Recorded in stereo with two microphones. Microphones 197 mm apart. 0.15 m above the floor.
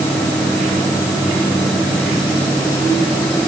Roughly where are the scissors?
No scissors in this recording.